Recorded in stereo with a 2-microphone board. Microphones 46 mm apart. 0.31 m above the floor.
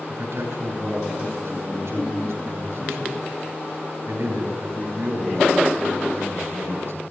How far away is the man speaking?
About 6 m.